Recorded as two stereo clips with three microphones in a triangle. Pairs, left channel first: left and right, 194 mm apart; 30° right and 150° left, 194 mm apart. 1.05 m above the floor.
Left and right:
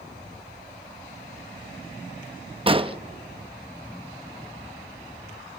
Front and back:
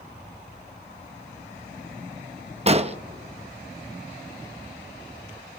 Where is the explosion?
150° right, 0.8 m.